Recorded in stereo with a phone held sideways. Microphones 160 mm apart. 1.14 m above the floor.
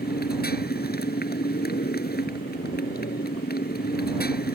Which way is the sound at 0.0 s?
80° left.